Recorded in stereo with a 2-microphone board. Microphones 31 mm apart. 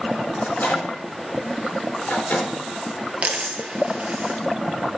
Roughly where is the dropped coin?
Right.